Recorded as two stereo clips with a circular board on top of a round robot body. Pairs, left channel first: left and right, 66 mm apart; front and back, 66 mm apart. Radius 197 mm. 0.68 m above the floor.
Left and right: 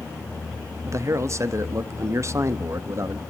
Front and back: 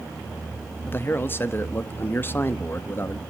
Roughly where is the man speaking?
Ahead right.